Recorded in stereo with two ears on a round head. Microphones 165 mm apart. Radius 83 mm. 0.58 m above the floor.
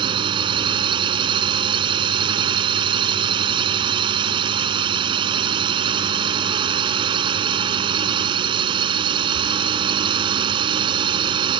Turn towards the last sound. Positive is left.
turn(degrees=-25)  # may be behind; listen again after turning